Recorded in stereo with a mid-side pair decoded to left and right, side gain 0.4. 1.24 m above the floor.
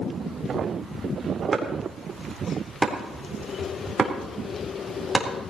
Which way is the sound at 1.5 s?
30° right.